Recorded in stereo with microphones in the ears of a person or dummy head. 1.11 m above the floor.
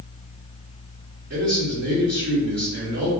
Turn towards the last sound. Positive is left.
turn(degrees=-55)  # may be behind; listen again after turning